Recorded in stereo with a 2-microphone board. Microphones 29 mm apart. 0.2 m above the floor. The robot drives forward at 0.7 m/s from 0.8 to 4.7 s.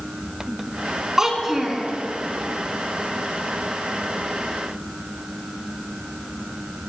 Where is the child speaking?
20° right (ahead or behind), 1.2 m; by 1.8 s 15° right (ahead or behind), 1.6 m.